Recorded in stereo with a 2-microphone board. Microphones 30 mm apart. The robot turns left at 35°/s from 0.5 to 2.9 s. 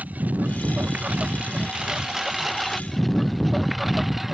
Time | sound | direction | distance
0.0 | a lawn mower | 60° right (ahead or behind) | ?